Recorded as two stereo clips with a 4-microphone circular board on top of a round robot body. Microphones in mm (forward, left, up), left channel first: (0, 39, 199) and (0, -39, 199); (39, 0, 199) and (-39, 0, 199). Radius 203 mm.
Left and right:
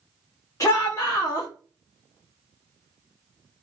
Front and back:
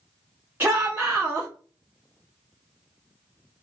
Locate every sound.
0.6 s a shout: 120° left, 1.2 m